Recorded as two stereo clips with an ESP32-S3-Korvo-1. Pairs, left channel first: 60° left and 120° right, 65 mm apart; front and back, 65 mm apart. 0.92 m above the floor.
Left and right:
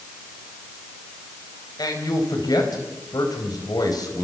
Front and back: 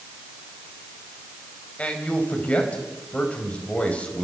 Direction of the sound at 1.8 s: 70° left.